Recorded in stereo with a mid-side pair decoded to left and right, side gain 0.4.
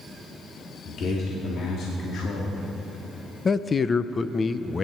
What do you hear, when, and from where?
0.8 s a man speaking: 70° left, 2.5 m
3.5 s a man speaking: 35° left, 0.7 m